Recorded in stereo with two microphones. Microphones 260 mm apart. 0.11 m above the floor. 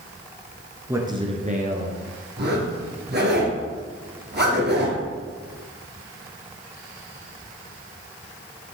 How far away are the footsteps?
No footsteps in this recording.